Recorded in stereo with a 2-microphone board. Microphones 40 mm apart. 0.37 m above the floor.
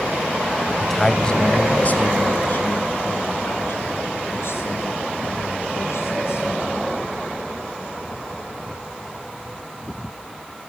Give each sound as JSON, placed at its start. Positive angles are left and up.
{"t": 0.8, "sound": "a man speaking", "side_deg": 0, "distance_m": 1.9}